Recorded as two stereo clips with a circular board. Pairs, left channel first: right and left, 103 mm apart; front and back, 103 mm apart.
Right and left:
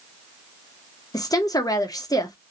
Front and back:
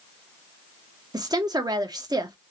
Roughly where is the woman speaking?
Behind right.